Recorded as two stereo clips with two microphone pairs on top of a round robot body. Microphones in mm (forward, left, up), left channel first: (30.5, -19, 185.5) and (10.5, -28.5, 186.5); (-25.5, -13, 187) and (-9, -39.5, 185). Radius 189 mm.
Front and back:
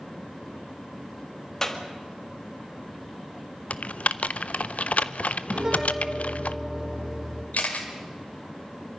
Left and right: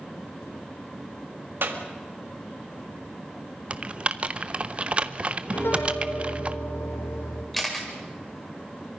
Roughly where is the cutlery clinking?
I don't hear cutlery clinking.